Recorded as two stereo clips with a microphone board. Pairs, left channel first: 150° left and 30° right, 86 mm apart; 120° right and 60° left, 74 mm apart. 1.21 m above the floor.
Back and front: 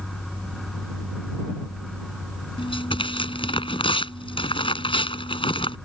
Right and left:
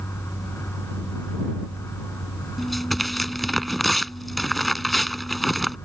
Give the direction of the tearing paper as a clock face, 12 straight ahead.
7 o'clock.